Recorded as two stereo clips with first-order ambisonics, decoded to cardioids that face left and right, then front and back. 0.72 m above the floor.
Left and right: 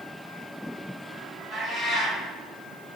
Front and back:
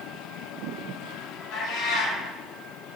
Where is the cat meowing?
Straight ahead, 1.2 m.